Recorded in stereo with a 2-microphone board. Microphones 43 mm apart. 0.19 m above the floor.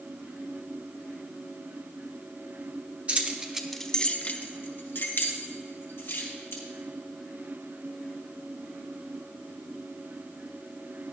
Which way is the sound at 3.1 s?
40° right (ahead or behind).